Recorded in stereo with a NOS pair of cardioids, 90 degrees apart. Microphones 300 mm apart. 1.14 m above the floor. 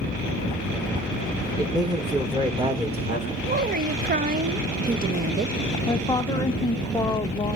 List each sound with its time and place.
1.6 s a man speaking: 10° right, 3 m; by 3.3 s 20° right, 4.5 m
3.4 s a woman speaking: 30° right, 0.8 m
5.9 s a woman speaking: 15° left, 0.7 m